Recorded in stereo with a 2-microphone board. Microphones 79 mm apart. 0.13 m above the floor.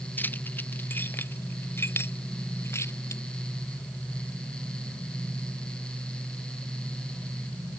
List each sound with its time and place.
0.2 s keys jangling: 20° left (ahead or behind); by 3.2 s 35° left (ahead or behind)